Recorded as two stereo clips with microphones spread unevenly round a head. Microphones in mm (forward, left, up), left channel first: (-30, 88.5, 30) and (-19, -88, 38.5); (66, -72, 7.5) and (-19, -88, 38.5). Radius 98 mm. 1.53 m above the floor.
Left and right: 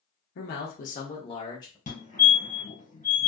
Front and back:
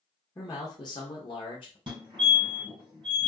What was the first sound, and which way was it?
A man speaking, 70° left.